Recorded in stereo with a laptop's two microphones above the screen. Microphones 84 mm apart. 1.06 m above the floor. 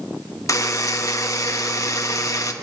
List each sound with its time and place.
0.5 s a buzzer: 40° left (ahead or behind), 0.9 m